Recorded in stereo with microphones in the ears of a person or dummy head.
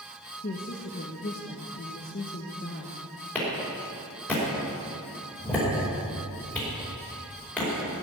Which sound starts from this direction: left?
A woman speaking, at 0.4 s.